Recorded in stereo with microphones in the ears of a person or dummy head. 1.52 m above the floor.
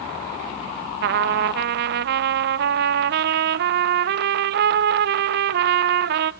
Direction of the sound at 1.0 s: 60° right (ahead or behind).